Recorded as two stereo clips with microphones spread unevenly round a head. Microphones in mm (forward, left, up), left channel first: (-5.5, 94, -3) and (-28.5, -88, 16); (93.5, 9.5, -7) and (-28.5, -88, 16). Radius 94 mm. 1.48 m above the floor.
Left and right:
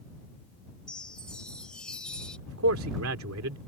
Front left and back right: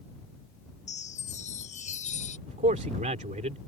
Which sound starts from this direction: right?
A man speaking, at 2.5 s.